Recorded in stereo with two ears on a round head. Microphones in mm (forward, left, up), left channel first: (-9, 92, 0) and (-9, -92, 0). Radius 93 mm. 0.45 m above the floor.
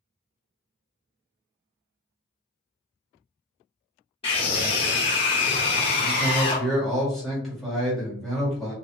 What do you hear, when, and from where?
4.2 s a scream: 25° left (ahead or behind), 0.8 m
6.0 s a man speaking: centre (ahead or behind), 1.4 m